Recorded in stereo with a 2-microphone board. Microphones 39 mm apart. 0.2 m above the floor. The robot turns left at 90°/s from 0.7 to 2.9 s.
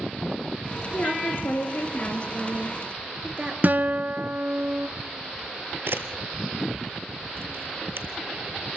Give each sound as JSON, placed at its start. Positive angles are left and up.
{"t": 0.9, "sound": "a woman speaking", "azimuth_deg": 150, "distance_m": 3.5}
{"t": 3.6, "sound": "a guitar", "side_deg": -50, "distance_m": 0.7}
{"t": 5.9, "sound": "a camera shutter", "side_deg": -75, "distance_m": 1.7}